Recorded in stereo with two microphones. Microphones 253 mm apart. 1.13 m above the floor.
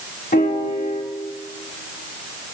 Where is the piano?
35° left (ahead or behind), 1.6 m.